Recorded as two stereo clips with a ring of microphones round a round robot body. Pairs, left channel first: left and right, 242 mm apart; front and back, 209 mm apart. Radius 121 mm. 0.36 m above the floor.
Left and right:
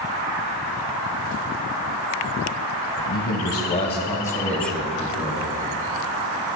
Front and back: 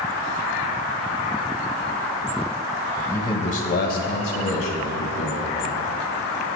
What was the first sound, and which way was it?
A man speaking, 85° left.